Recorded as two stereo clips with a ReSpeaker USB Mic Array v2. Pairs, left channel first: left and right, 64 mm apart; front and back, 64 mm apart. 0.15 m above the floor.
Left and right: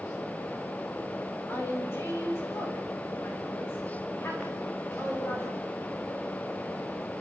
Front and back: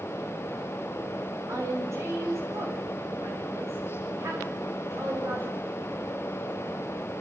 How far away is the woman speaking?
About 8.5 m.